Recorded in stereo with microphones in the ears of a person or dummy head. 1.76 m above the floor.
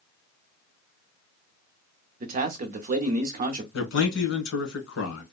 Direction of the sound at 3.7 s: 80° left.